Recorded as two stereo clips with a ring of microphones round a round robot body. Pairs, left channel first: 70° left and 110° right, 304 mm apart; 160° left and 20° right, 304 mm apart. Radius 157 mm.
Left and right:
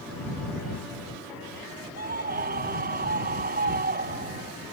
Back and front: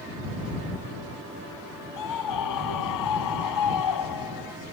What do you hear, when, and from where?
2.0 s a scream: 175° right